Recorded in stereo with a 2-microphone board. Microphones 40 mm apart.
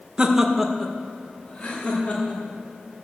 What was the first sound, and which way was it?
Laughter, 25° right (ahead or behind).